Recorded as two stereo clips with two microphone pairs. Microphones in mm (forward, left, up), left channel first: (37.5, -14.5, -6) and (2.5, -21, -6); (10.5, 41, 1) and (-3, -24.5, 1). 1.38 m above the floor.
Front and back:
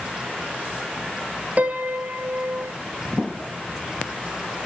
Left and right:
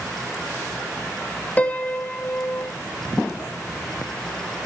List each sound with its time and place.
1.6 s a piano: 145° left, 1.1 m